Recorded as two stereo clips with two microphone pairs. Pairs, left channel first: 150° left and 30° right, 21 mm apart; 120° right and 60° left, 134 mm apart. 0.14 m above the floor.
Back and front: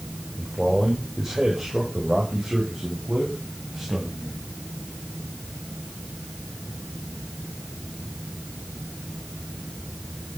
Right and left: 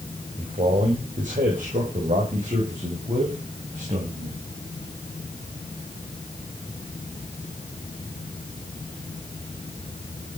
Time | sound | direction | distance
0.4 | a man speaking | 40° left | 5 m